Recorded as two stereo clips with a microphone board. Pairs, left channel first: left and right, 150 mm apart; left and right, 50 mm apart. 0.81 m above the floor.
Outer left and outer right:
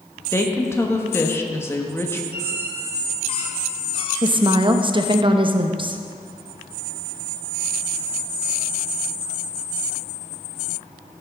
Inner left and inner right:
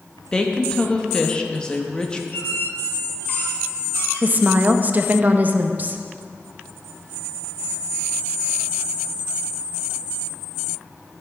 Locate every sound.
0.3 s a woman speaking: 15° left (ahead or behind), 1.1 m
2.3 s a squeak: 40° left (ahead or behind), 1.9 m
4.2 s a woman speaking: 35° right (ahead or behind), 0.7 m